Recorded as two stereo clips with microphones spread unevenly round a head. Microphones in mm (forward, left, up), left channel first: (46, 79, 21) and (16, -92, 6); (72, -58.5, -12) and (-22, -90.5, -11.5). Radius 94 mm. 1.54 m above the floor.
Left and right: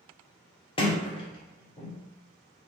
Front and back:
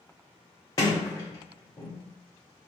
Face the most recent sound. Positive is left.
turn(degrees=50)